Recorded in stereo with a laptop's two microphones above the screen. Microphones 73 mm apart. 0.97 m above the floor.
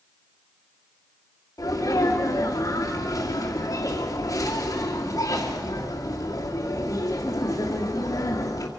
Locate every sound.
1.6 s a sneeze: 50° left (ahead or behind), 2 m